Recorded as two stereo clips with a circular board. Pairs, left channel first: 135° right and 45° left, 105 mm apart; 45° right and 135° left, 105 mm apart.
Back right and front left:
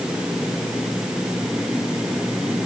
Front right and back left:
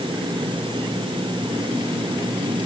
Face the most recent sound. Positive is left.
No sound to turn to.